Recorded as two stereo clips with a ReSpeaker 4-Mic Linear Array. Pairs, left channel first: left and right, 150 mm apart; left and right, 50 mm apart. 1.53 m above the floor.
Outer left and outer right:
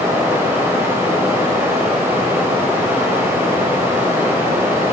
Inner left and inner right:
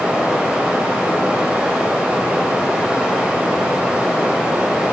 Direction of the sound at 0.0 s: 15° right (ahead or behind).